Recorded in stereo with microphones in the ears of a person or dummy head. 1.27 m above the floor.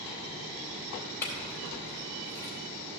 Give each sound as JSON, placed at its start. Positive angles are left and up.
{"t": 1.2, "sound": "a clink", "side_deg": 15, "distance_m": 3.5}